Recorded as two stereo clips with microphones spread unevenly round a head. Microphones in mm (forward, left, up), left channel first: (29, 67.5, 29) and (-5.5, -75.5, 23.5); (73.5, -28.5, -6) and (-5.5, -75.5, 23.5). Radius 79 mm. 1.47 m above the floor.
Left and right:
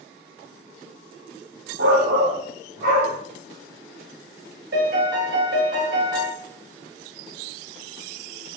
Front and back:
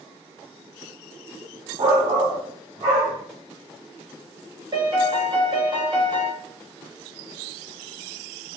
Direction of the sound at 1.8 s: 130° right.